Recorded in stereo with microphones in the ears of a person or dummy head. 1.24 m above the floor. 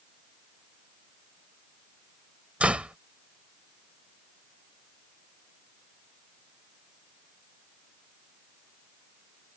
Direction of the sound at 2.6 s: 10° right (ahead or behind).